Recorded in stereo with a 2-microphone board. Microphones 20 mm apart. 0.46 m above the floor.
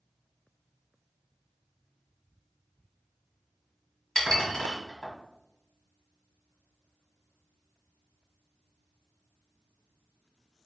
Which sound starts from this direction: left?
Dishes clattering, at 4.2 s.